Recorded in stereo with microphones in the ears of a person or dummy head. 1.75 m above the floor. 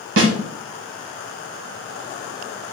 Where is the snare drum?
65° right (ahead or behind), 1.0 m.